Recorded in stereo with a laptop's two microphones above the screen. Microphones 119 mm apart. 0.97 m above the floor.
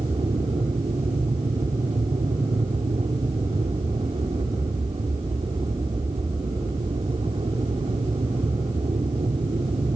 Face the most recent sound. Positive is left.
turn(degrees=-55)  # may be behind; listen again after turning